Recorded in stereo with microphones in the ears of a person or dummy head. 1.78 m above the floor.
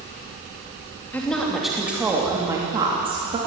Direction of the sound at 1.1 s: 10° left (ahead or behind).